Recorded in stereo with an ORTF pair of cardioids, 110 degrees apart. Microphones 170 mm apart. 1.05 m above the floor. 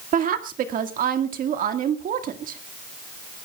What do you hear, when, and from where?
0.1 s a woman speaking: 55° right, 1.8 m